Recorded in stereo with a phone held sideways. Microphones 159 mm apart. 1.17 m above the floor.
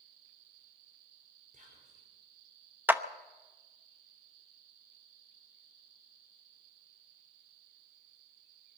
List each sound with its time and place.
1.5 s whispering: 50° right (ahead or behind), 4.5 m
2.9 s a clap: 10° right (ahead or behind), 0.7 m